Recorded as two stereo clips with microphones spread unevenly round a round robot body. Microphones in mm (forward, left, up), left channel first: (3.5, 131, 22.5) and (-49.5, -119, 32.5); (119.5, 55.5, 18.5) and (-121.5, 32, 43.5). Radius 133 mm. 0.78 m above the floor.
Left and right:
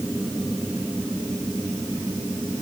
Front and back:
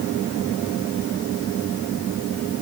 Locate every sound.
Only background noise.